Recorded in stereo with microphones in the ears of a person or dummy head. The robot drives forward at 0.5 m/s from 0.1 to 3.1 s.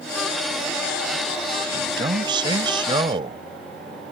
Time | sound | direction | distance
1.7 | a man speaking | 30° right (ahead or behind) | ?